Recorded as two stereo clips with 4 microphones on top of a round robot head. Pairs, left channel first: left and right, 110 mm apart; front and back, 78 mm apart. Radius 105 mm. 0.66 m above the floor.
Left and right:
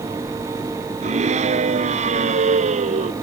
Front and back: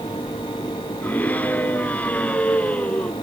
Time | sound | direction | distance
1.0 | a scream | 75° right | ?